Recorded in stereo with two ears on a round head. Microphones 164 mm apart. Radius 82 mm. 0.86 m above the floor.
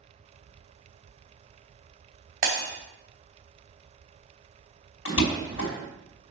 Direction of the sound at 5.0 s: 80° left.